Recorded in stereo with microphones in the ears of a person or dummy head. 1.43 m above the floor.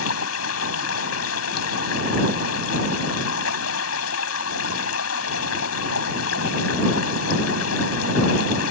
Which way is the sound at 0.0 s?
90° left.